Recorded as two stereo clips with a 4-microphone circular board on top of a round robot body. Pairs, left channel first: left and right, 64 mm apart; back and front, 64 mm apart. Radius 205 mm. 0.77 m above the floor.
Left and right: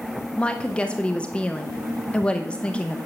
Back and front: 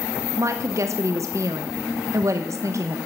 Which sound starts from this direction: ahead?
A woman speaking, at 0.4 s.